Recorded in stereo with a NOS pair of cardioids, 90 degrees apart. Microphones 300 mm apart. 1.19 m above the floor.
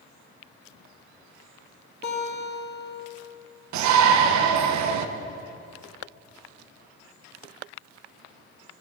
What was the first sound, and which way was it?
A guitar, 35° left.